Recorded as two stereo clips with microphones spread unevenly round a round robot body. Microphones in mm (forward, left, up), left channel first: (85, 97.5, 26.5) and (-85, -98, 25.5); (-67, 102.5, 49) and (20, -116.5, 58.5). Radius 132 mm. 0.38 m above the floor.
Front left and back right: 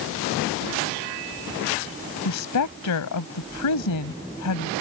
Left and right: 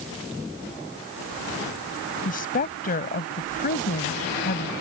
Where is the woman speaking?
60° left.